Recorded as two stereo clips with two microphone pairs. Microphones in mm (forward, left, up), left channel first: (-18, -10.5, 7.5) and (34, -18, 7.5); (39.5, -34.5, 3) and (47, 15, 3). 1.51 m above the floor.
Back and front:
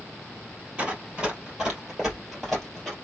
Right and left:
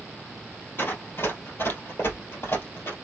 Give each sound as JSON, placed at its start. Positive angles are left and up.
{"t": 0.8, "sound": "running footsteps", "azimuth_deg": -75, "distance_m": 2.5}